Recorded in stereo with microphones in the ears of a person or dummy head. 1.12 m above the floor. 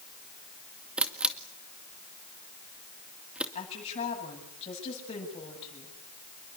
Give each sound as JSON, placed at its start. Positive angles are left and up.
{"t": 1.0, "sound": "a camera shutter", "side_deg": -5, "distance_m": 2.0}
{"t": 3.5, "sound": "a woman speaking", "side_deg": 30, "distance_m": 10.0}